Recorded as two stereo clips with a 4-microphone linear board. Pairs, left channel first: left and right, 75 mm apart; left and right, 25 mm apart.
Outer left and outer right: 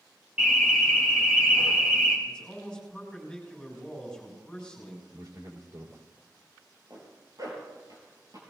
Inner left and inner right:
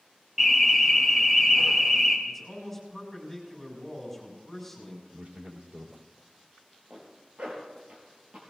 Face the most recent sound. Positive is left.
turn(degrees=-60)  # may be behind; listen again after turning